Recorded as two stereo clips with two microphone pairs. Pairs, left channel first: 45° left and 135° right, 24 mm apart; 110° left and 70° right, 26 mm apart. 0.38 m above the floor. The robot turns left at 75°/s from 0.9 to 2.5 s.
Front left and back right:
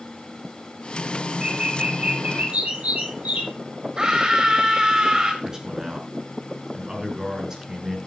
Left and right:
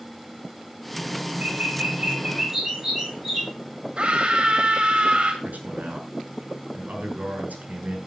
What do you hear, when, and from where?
1.4 s a bird: 60° right, 7.5 m; by 3.5 s 145° right, 7.5 m
4.0 s a scream: 90° right, 1.8 m
5.4 s a man speaking: 70° right, 6 m